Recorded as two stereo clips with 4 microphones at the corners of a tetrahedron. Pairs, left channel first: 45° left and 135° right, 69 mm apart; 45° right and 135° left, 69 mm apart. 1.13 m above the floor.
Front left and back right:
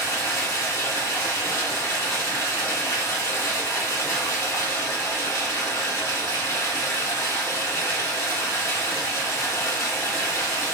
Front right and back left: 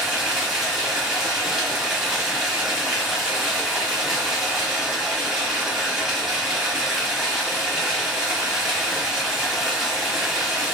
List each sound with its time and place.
0.0 s running water: 55° left, 1.2 m